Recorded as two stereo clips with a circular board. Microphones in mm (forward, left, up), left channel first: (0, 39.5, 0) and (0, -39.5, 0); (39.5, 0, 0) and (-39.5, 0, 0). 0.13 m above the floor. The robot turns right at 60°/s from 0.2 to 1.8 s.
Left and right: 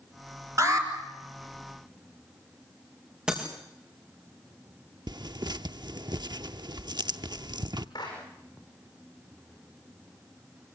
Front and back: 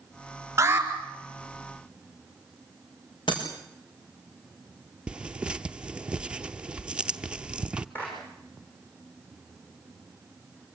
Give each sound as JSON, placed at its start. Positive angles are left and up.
{"t": 0.6, "sound": "an alarm", "azimuth_deg": -130, "distance_m": 4.0}
{"t": 3.3, "sound": "breaking glass", "azimuth_deg": -10, "distance_m": 6.0}
{"t": 5.1, "sound": "tearing paper", "azimuth_deg": -105, "distance_m": 0.7}
{"t": 8.0, "sound": "a clap", "azimuth_deg": 65, "distance_m": 8.5}